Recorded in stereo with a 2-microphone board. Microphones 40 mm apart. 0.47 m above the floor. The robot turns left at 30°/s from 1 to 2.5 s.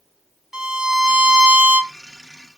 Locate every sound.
0.5 s a violin: 15° right (ahead or behind), 1.2 m; by 1.9 s 25° right (ahead or behind), 1.2 m